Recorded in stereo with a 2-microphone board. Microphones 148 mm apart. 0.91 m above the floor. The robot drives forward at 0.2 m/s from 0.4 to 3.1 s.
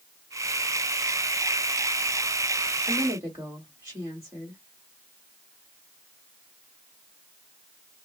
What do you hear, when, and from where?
2.9 s a woman speaking: 20° right (ahead or behind), 1.5 m